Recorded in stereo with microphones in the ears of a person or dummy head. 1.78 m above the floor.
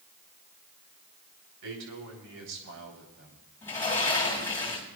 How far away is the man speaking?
About 4 m.